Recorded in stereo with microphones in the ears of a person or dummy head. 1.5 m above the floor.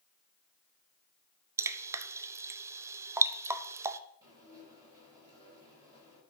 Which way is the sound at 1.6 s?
20° right (ahead or behind).